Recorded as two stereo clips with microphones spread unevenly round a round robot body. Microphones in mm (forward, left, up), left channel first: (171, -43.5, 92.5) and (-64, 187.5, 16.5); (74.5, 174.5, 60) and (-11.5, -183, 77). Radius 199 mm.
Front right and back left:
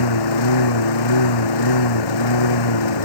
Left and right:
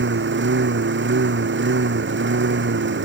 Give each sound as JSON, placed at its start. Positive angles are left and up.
{"t": 0.0, "sound": "a lawn mower", "azimuth_deg": -45}